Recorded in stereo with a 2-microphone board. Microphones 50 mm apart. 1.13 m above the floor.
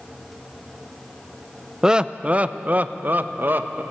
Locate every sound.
1.8 s laughter: 15° right (ahead or behind), 0.6 m; by 3.8 s 45° right (ahead or behind), 1.5 m